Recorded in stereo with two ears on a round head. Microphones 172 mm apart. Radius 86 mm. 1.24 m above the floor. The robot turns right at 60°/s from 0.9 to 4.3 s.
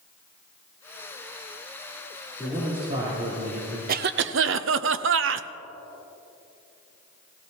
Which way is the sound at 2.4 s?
170° left.